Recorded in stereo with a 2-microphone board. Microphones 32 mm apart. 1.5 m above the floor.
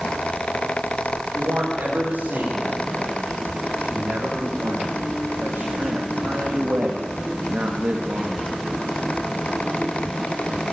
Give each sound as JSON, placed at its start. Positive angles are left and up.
{"t": 1.3, "sound": "a man speaking", "side_deg": -90, "distance_m": 5.5}